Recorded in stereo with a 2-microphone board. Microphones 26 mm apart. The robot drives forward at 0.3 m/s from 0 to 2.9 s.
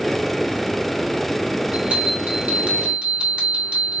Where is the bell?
75° right (ahead or behind), 2.5 m; by 4.0 s 70° right (ahead or behind), 2.5 m.